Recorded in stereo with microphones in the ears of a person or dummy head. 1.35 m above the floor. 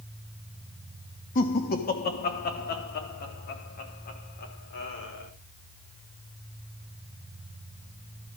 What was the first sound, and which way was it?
Laughter, 45° left (ahead or behind).